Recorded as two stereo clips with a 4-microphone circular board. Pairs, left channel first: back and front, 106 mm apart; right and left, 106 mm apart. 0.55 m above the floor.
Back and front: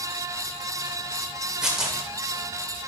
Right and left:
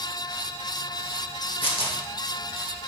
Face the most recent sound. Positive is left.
turn(degrees=-85)